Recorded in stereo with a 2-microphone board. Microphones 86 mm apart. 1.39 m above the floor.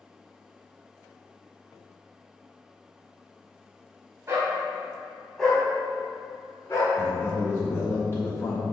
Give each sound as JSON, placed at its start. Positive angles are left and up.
{"t": 4.3, "sound": "a dog barking", "side_deg": -30, "distance_m": 2.5}
{"t": 7.0, "sound": "a man speaking", "side_deg": 30, "distance_m": 3.0}